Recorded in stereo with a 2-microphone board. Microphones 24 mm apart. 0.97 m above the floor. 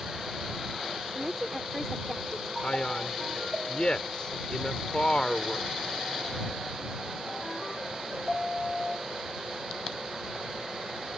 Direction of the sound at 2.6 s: 40° left (ahead or behind).